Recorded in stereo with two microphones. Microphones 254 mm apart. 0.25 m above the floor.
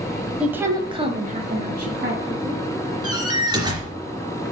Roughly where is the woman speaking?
Centre.